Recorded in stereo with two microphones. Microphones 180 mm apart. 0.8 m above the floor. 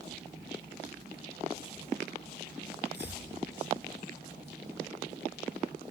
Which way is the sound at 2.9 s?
75° left (ahead or behind).